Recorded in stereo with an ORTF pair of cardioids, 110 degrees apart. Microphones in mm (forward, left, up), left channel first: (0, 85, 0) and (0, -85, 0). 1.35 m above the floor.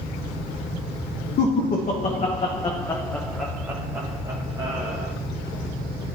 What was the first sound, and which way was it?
Laughter, 60° left.